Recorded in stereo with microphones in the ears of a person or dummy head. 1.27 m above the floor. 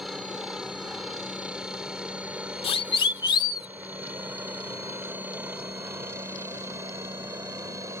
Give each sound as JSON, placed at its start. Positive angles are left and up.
{"t": 0.0, "sound": "a helicopter", "side_deg": 0}
{"t": 2.6, "sound": "a siren", "side_deg": 35}